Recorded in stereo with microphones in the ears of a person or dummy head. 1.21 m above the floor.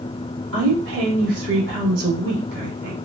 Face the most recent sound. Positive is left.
turn(degrees=-70)  # may be behind; listen again after turning